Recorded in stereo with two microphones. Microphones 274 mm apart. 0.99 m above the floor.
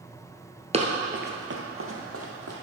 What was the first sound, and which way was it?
Running footsteps, 25° right (ahead or behind).